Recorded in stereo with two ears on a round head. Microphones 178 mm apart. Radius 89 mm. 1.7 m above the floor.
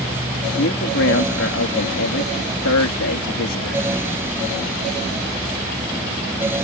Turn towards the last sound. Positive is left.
turn(degrees=70)  # may be behind; listen again after turning